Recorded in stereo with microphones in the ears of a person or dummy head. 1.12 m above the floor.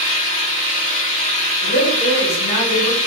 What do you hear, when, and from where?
0.0 s an engine running: 35° left (ahead or behind), 1.5 m
1.6 s a woman speaking: 50° left (ahead or behind), 1.7 m